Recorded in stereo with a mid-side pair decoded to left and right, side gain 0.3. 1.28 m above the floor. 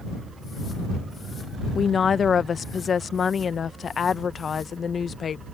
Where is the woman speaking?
65° left.